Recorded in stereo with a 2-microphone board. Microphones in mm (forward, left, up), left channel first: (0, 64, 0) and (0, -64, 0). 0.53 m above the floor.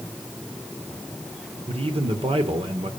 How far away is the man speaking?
About 1.7 m.